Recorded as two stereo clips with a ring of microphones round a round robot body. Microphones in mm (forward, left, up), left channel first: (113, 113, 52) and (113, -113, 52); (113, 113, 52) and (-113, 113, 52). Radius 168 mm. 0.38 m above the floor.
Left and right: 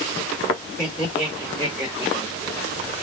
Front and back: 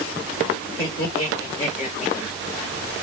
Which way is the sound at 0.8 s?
25° left.